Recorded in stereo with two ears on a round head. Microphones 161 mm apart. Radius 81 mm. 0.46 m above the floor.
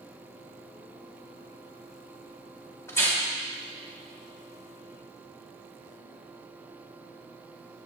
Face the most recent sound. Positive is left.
turn(degrees=15)  # may be behind; listen again after turning